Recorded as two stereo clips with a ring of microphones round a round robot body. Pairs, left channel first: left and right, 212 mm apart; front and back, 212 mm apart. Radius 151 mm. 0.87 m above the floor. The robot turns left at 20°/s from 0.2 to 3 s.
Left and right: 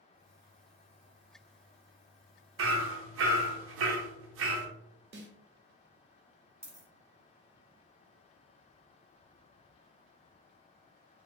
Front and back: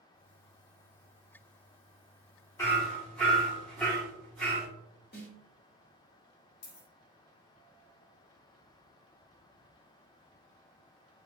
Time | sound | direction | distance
2.6 | hammering | 80° right | 0.7 m
5.1 | a snare drum | 55° right | 0.9 m
6.6 | a dropped coin | 10° right | 1.2 m